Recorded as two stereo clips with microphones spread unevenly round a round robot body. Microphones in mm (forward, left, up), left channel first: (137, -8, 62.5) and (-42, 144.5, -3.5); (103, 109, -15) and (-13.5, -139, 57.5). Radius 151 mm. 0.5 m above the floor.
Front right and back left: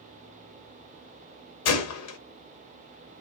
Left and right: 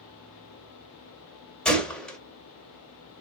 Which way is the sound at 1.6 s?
20° right.